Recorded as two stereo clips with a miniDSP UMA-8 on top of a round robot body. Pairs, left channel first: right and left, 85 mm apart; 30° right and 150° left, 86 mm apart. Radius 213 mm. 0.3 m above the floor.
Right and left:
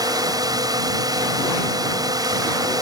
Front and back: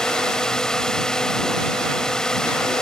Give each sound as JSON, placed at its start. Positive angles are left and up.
{"t": 0.0, "sound": "a drone", "azimuth_deg": 50}